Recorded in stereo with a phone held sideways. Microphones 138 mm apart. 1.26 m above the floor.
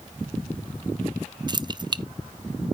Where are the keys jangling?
30° right (ahead or behind), 0.5 m.